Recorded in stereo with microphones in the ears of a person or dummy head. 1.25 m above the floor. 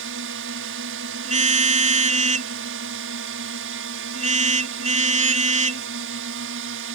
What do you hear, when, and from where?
0.0 s a drone: 65° right (ahead or behind)
1.2 s a car horn: 40° right (ahead or behind)